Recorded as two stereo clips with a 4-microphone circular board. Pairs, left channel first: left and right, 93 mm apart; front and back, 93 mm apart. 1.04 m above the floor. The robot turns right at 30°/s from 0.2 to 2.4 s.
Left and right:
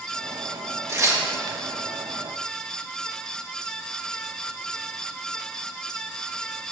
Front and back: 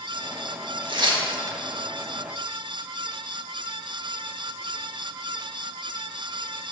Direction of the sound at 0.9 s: 150° right.